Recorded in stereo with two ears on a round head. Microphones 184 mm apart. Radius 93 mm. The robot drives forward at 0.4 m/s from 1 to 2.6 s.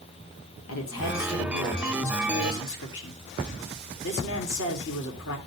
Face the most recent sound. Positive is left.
turn(degrees=70)  # may be behind; listen again after turning